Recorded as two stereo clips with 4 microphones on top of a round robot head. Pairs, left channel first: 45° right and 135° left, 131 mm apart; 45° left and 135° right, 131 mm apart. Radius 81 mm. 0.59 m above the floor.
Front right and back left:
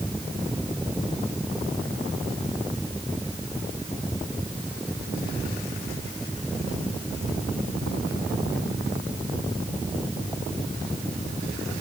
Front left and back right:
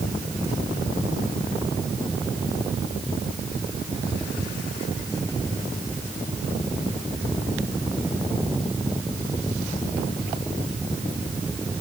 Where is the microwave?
I don't hear a microwave.